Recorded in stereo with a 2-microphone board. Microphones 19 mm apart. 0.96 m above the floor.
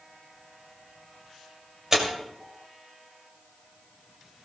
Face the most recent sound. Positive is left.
turn(degrees=-20)  # may be behind; listen again after turning